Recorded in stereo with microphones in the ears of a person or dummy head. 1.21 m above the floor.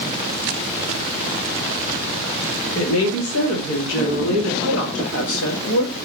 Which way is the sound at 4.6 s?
70° left (ahead or behind).